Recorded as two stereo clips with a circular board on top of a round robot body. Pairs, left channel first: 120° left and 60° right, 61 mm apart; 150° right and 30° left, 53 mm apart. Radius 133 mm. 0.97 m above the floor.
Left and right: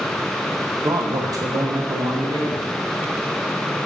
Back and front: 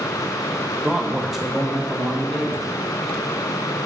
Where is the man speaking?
55° right, 0.7 m.